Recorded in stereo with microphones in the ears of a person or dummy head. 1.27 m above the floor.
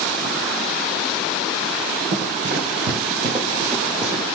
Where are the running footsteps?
45° right (ahead or behind), 1.9 m; by 4.2 s 5° right (ahead or behind), 1.9 m.